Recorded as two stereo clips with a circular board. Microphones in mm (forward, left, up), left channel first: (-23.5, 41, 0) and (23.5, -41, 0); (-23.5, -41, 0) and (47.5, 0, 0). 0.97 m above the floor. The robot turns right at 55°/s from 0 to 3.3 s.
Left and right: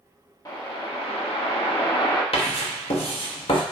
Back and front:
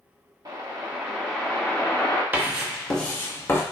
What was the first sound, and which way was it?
A whoosh, 65° left.